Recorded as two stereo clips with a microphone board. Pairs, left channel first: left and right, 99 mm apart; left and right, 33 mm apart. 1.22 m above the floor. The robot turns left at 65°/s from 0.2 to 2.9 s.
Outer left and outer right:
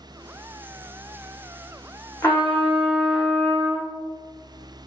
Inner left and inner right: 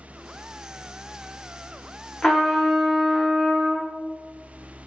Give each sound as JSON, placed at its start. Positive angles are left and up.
{"t": 2.2, "sound": "a trumpet", "azimuth_deg": 40, "distance_m": 1.0}